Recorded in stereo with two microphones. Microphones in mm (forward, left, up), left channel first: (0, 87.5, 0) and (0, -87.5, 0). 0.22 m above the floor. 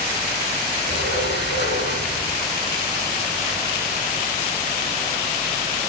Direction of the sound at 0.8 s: 80° left.